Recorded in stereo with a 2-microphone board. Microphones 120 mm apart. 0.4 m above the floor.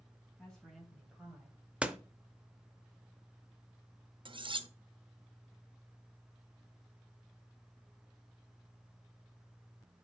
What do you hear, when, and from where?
0.4 s a woman speaking: 5° left (ahead or behind), 3 m; by 1.6 s 20° right (ahead or behind), 2 m
1.8 s a door slam: 10° right (ahead or behind), 0.6 m
4.2 s cutlery clinking: 45° right (ahead or behind), 0.6 m